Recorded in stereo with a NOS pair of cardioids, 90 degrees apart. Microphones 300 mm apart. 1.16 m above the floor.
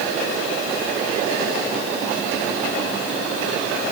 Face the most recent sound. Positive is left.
No sound to turn to.